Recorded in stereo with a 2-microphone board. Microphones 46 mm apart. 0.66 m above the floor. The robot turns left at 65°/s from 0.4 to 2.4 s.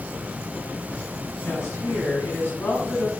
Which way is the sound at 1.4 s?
120° left.